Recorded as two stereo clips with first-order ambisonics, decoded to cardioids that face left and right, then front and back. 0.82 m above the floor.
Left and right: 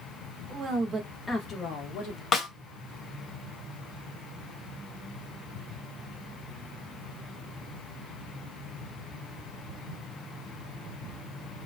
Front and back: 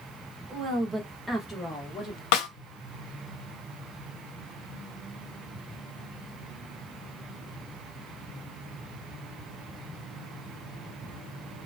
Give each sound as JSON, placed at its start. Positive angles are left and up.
{"t": 0.5, "sound": "a woman speaking", "azimuth_deg": -135, "distance_m": 1.0}
{"t": 2.3, "sound": "a snare drum", "azimuth_deg": 20, "distance_m": 0.8}